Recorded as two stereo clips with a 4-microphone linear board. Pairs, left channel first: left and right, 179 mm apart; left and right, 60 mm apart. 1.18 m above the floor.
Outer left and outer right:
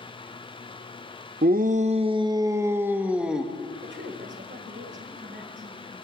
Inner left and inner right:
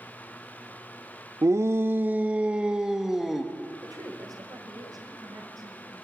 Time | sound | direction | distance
1.4 | a shout | 55° right (ahead or behind) | 0.7 m
3.8 | a woman speaking | 75° right (ahead or behind) | 4.5 m